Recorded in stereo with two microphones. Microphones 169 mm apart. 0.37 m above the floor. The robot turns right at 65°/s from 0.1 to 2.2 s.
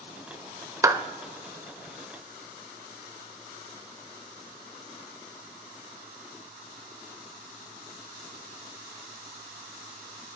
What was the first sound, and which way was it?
A clap, 20° right (ahead or behind).